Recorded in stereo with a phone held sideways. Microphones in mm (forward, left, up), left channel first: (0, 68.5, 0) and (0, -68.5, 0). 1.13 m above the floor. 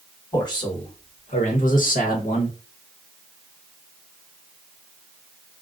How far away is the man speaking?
About 1.2 m.